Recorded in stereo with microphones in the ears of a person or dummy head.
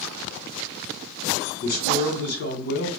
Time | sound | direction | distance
1.6 | a man speaking | 55° left (ahead or behind) | 1.5 m